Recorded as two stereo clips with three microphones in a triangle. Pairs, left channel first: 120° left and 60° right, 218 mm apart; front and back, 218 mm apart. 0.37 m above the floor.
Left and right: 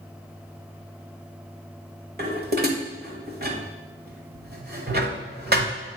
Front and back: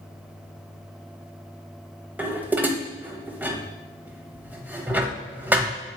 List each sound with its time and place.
2.2 s dishes clattering: 100° right, 1.0 m